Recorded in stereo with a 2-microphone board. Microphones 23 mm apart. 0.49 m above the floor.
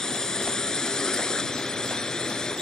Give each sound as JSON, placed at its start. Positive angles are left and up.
{"t": 0.0, "sound": "a drone", "side_deg": 25}